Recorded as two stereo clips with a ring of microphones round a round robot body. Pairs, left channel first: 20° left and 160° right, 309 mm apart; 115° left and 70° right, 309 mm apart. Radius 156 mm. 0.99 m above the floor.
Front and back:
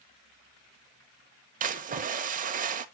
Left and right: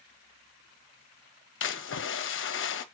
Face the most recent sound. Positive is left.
turn(degrees=145)